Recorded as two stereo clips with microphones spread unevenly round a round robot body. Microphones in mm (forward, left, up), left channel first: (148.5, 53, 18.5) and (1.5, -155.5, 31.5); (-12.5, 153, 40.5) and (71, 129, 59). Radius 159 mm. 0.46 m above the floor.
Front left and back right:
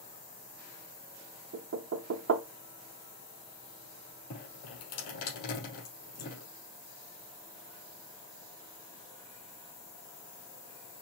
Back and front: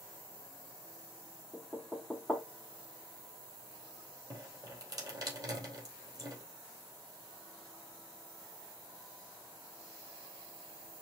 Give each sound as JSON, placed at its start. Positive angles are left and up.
{"t": 1.5, "sound": "knocking", "azimuth_deg": -110, "distance_m": 0.6}
{"t": 4.3, "sound": "dripping", "azimuth_deg": 30, "distance_m": 3.0}